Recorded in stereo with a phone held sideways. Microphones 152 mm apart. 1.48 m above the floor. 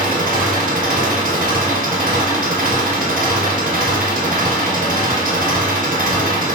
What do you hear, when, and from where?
0.0 s an engine running: 65° right (ahead or behind), 1.2 m